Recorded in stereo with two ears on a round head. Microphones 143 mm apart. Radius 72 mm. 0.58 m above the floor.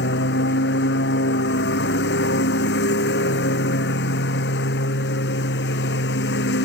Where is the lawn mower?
75° left (ahead or behind).